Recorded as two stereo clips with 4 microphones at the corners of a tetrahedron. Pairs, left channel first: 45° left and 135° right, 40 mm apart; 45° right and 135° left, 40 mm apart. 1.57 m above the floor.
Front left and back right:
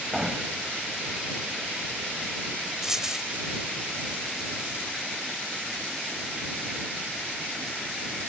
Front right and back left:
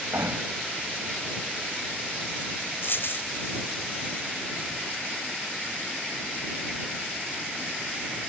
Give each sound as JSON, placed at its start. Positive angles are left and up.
{"t": 0.1, "sound": "hammering", "azimuth_deg": 145}
{"t": 2.8, "sound": "a dropped coin", "azimuth_deg": -60}